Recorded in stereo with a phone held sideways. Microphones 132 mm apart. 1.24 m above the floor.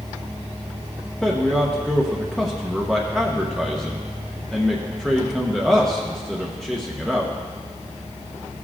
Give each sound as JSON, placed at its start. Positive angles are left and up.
{"t": 1.2, "sound": "a man speaking", "side_deg": 5, "distance_m": 0.9}